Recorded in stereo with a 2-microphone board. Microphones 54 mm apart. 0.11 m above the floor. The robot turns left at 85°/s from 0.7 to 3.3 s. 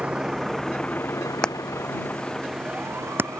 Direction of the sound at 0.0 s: 25° right (ahead or behind).